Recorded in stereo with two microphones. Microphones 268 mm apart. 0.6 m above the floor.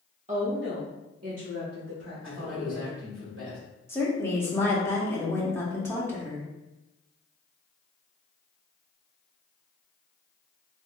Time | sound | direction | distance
0.3 | a woman speaking | 25° right (ahead or behind) | 0.7 m
2.2 | a man speaking | 50° right (ahead or behind) | 2.0 m
3.9 | a woman speaking | 10° left (ahead or behind) | 1.0 m